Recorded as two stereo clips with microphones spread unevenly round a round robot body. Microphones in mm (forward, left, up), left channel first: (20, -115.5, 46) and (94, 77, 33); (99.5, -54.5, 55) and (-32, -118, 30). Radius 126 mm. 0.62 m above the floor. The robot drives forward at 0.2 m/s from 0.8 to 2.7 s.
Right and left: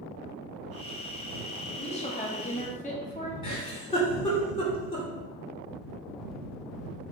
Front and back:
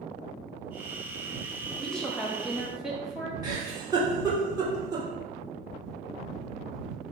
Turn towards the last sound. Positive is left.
turn(degrees=-165)